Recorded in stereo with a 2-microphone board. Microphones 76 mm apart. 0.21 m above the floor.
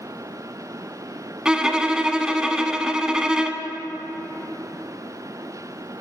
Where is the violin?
10° right (ahead or behind), 0.7 m.